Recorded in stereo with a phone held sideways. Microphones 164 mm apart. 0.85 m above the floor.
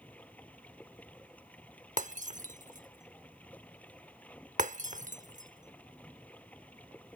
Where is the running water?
10° left (ahead or behind).